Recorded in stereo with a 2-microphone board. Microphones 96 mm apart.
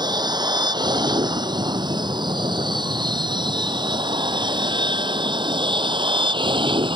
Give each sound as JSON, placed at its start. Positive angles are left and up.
{"t": 0.0, "sound": "an aircraft", "side_deg": -45}